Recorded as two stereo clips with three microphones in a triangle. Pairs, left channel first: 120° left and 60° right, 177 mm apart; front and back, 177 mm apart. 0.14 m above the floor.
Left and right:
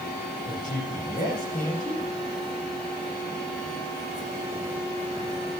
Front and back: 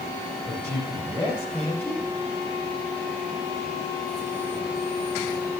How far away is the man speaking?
About 7 m.